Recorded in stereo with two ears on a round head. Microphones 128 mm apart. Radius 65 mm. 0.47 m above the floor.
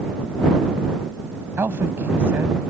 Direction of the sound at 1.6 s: 15° right (ahead or behind).